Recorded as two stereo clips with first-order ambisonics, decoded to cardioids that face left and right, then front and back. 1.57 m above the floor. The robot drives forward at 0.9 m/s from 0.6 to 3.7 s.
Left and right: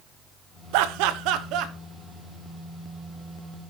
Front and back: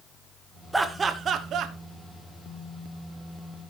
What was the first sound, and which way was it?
Laughter, 95° right.